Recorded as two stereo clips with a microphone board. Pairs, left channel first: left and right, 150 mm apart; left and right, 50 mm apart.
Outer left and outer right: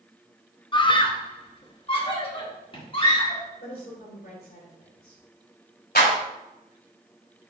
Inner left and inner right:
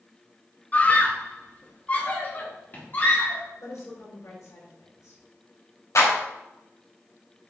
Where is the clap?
80° left, 3.5 m.